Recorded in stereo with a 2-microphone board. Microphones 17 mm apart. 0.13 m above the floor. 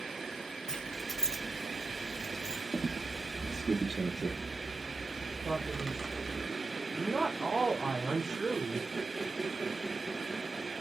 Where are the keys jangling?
45° left (ahead or behind), 1.9 m; by 2.6 s 50° left (ahead or behind), 1.8 m.